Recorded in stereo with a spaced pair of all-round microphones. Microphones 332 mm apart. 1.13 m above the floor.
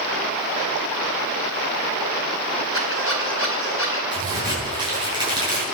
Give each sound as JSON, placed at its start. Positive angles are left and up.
{"t": 2.7, "sound": "a squeak", "side_deg": 40, "distance_m": 4.0}
{"t": 4.1, "sound": "a crack", "side_deg": -15, "distance_m": 9.0}